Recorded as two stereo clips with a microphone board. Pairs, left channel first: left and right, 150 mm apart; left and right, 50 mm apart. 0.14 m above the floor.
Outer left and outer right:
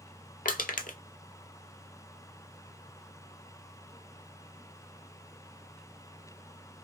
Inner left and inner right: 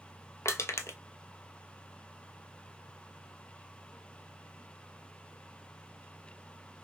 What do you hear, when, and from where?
0.5 s crushing: 70° left (ahead or behind), 0.5 m